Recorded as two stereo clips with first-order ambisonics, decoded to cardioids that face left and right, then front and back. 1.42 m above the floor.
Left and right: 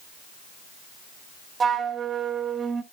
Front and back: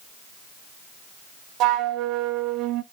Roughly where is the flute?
Behind right.